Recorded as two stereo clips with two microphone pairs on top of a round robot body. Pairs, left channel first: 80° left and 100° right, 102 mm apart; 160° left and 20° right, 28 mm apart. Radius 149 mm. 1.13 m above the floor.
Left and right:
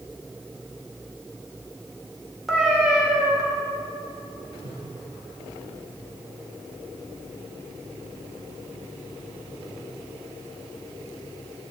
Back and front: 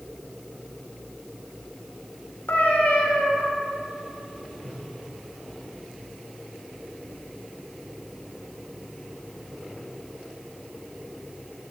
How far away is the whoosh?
About 4.5 m.